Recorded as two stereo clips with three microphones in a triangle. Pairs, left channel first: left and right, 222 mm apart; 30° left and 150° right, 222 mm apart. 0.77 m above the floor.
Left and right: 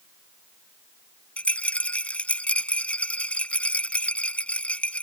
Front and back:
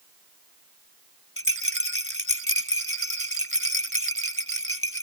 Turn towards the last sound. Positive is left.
turn(degrees=5)